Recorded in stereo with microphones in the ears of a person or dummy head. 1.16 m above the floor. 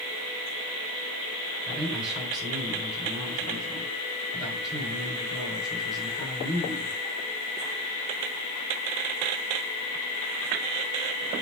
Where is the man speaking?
5° right (ahead or behind), 4 m.